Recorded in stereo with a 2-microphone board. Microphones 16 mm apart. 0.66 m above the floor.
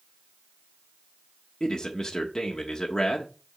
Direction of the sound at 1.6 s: 35° left (ahead or behind).